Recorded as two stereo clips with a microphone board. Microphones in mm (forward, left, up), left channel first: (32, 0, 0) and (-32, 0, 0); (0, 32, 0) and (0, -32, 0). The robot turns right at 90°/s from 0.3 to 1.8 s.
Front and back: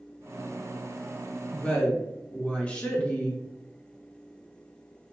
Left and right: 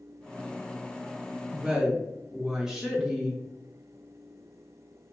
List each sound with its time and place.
1.5 s a woman speaking: 55° right, 0.8 m; by 3.4 s 25° right, 0.8 m